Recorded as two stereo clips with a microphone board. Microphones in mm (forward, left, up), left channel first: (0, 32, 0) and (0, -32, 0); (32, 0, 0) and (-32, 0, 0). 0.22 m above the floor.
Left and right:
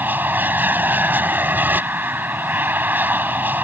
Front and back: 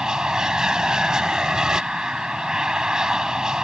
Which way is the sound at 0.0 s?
110° right.